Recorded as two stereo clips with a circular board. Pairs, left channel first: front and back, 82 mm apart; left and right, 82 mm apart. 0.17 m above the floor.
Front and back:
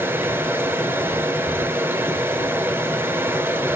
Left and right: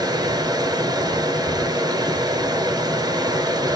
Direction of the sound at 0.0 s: 120° right.